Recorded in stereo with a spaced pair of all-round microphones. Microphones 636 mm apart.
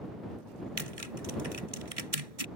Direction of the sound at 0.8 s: 60° right (ahead or behind).